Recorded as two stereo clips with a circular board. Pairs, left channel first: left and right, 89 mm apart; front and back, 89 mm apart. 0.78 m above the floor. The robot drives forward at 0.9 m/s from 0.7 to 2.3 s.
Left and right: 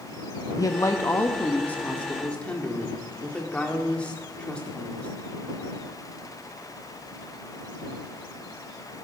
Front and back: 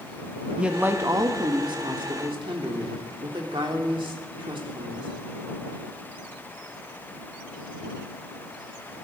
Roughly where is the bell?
I don't hear a bell.